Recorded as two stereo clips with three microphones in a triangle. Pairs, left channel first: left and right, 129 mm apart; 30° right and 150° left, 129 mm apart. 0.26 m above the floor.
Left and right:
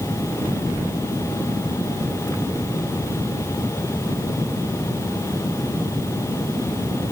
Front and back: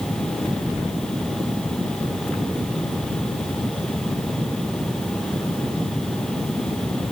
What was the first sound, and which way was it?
Only background noise.